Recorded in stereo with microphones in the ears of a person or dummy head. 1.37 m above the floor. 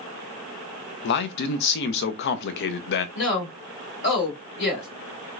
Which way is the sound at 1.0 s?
55° left (ahead or behind).